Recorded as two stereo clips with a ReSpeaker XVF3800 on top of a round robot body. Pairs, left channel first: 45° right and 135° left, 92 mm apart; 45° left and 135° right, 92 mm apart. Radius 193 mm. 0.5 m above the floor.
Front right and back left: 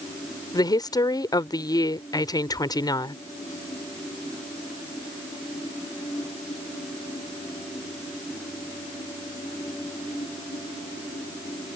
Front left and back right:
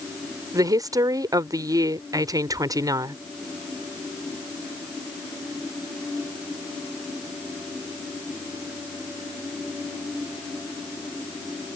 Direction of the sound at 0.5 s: 90° right.